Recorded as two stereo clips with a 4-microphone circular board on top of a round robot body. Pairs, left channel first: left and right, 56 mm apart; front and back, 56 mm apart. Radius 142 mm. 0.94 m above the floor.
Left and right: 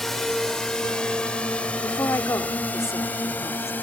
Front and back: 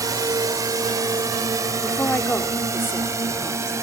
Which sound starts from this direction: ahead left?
A woman speaking, at 1.8 s.